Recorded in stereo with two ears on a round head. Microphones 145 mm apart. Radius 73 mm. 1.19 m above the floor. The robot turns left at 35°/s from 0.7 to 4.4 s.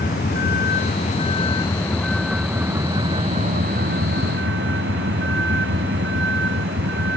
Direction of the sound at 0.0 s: 55° left.